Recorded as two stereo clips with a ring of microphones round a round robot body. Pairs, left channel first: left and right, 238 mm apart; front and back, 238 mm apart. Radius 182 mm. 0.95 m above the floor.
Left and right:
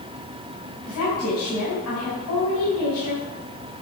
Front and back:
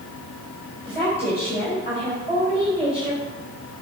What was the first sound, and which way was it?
A woman speaking, 115° left.